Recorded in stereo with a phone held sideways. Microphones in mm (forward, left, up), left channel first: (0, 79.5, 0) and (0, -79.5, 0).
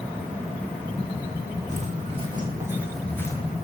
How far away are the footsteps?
About 2 m.